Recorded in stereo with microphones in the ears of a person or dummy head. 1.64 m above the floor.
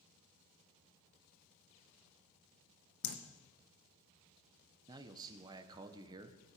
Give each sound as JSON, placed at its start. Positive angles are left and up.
{"t": 3.0, "sound": "dripping", "side_deg": 60, "distance_m": 1.3}
{"t": 4.9, "sound": "a man speaking", "side_deg": -20, "distance_m": 1.1}